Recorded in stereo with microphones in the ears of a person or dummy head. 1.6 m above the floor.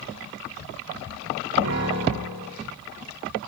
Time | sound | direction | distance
1.6 | a piano | 70° right (ahead or behind) | 8 m